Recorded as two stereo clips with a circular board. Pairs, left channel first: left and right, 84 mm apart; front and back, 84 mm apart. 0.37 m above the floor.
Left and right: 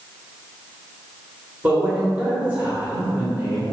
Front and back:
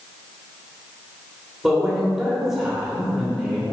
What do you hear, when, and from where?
1.6 s a man speaking: 105° right, 1.3 m